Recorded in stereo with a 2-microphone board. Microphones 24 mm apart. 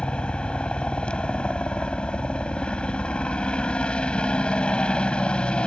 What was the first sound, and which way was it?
A helicopter, 40° left (ahead or behind).